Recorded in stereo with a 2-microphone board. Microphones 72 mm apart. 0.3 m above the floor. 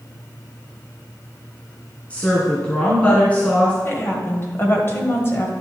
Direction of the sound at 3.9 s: 35° left (ahead or behind).